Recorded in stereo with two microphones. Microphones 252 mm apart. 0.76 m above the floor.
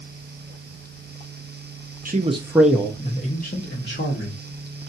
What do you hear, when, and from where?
2.0 s a man speaking: 35° right (ahead or behind), 0.7 m; by 4.9 s 55° left (ahead or behind), 1.8 m